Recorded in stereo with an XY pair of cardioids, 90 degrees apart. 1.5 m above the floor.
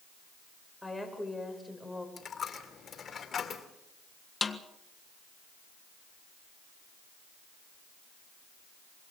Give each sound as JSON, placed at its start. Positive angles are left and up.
{"t": 0.8, "sound": "a woman speaking", "azimuth_deg": 10, "distance_m": 7.0}
{"t": 2.2, "sound": "a dropped coin", "azimuth_deg": 50, "distance_m": 2.5}
{"t": 4.4, "sound": "a snare drum", "azimuth_deg": 25, "distance_m": 1.6}